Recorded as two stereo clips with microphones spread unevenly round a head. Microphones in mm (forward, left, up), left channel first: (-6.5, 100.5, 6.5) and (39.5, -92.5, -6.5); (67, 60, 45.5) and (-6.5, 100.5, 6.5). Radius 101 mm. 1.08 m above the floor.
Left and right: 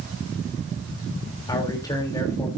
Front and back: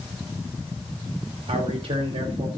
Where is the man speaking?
175° left, 3 m.